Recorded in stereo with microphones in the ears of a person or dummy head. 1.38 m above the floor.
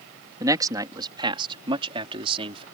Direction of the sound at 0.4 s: 20° right (ahead or behind).